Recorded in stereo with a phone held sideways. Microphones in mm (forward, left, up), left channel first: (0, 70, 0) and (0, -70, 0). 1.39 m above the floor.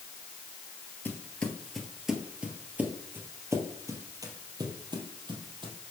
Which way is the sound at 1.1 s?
10° left (ahead or behind).